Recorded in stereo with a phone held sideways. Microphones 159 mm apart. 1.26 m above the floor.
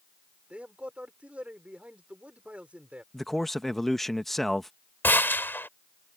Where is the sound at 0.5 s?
10° right (ahead or behind).